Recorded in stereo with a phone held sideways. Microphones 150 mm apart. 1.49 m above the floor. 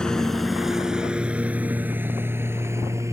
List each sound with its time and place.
0.0 s a lawn mower: 5° left (ahead or behind); by 3.1 s 20° right (ahead or behind)